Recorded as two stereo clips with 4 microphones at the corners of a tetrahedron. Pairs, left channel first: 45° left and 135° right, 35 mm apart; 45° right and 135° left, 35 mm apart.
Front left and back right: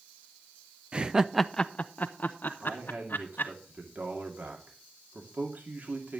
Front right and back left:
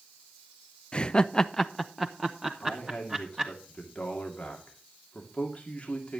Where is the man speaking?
100° right, 2 m.